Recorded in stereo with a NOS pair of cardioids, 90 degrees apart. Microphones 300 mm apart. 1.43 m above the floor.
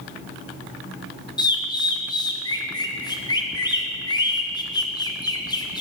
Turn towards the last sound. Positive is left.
turn(degrees=15)